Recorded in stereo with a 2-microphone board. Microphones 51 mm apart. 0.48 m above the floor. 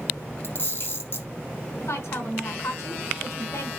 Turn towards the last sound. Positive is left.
turn(degrees=60)  # may be behind; listen again after turning